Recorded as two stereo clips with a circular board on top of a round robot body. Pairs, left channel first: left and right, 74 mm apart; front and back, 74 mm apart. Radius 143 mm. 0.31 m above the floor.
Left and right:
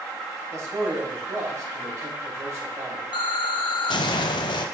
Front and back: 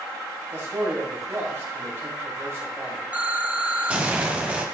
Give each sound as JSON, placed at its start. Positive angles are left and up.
{"t": 0.5, "sound": "a man speaking", "azimuth_deg": -130, "distance_m": 2.5}
{"t": 3.1, "sound": "an explosion", "azimuth_deg": 105, "distance_m": 0.6}